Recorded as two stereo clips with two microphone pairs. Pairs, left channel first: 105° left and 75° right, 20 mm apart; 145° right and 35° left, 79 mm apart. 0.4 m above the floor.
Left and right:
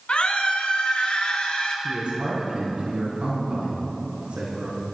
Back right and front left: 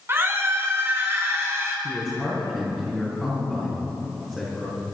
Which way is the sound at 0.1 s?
90° left.